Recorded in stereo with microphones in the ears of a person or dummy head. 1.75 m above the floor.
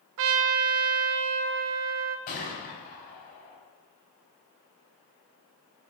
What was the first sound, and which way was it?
A trumpet, 60° right (ahead or behind).